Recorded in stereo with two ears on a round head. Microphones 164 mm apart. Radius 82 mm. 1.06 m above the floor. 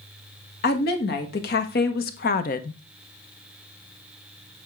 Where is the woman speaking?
60° left (ahead or behind), 1.7 m; by 2.8 s 45° left (ahead or behind), 0.6 m.